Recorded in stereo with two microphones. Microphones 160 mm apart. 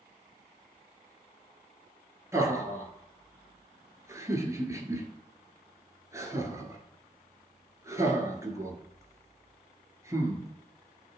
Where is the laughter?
20° right (ahead or behind), 1.4 m.